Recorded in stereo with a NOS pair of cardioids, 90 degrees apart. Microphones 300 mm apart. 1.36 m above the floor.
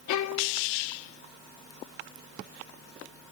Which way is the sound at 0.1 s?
70° left.